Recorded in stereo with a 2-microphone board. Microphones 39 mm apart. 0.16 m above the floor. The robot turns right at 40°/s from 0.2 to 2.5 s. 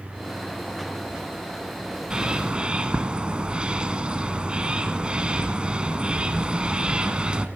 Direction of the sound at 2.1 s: 20° right (ahead or behind).